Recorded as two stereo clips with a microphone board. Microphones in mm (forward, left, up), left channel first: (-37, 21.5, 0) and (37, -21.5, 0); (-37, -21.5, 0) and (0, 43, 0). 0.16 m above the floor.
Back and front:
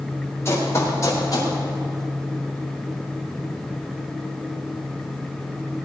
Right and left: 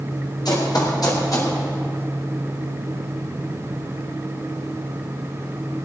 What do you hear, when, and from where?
0.5 s running footsteps: 150° right, 5.5 m; by 1.5 s 165° right, 4.5 m